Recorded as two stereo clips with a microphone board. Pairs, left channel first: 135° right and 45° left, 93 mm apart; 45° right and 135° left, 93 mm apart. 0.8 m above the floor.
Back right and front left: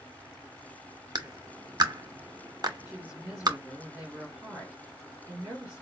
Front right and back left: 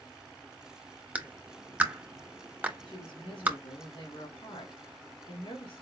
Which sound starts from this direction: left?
A clap, at 1.1 s.